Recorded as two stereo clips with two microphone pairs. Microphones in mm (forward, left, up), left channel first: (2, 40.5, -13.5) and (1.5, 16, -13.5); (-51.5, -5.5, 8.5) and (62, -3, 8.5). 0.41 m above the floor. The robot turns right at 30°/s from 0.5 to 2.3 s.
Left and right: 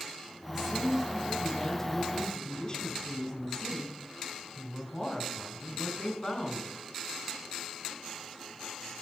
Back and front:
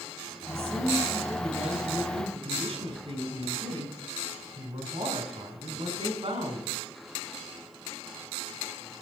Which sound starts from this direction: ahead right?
A woman speaking, at 0.5 s.